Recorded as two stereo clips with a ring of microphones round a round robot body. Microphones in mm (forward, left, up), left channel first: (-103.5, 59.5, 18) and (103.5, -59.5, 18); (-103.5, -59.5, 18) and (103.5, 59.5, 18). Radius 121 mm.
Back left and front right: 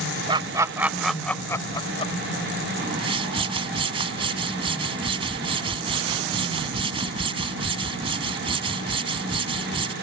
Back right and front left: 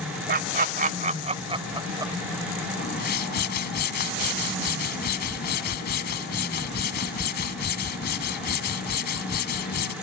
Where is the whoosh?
100° right.